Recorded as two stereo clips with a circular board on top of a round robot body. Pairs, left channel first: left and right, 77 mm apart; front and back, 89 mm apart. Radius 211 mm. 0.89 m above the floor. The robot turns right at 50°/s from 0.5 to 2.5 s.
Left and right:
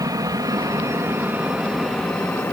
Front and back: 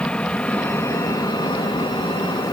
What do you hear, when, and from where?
0.0 s an aircraft: 75° right; by 2.5 s 35° left